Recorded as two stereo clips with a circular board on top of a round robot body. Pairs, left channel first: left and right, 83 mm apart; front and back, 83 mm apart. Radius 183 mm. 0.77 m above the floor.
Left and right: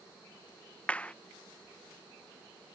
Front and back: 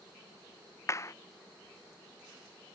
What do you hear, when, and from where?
0.9 s a clap: 25° left